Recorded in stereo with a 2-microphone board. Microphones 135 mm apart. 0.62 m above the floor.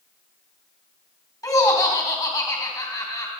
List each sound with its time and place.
1.4 s laughter: 25° left (ahead or behind), 3.5 m